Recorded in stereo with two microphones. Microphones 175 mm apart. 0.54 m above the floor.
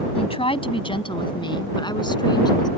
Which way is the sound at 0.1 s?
35° left (ahead or behind).